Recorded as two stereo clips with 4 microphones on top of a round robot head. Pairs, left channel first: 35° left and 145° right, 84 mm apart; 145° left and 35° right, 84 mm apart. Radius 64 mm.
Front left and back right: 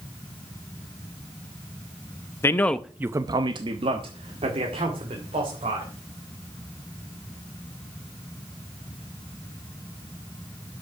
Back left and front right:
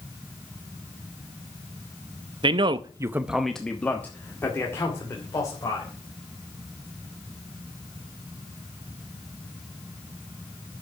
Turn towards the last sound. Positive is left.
turn(degrees=-160)